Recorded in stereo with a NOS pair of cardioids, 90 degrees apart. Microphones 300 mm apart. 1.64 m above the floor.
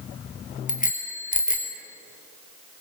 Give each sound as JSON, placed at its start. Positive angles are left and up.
{"t": 0.7, "sound": "a bicycle bell", "azimuth_deg": 25, "distance_m": 4.0}